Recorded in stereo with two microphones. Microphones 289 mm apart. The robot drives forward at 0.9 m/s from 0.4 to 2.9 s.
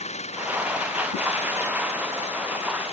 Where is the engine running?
20° left (ahead or behind).